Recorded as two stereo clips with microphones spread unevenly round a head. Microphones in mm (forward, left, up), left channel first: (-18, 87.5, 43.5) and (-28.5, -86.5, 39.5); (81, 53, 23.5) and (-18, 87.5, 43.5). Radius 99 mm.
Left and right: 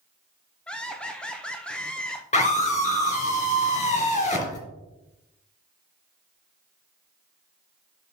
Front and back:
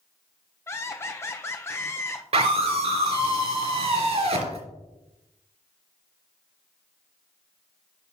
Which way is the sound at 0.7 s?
5° left.